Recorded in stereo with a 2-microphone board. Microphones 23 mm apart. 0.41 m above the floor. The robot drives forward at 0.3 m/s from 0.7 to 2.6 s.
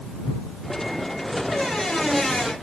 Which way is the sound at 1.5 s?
30° left (ahead or behind).